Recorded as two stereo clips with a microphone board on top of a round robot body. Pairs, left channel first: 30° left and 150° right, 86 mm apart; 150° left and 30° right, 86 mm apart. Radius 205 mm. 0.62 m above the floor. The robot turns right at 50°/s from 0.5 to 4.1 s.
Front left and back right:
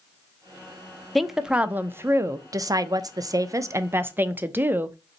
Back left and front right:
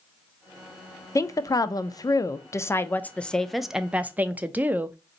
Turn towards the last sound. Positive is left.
turn(degrees=-95)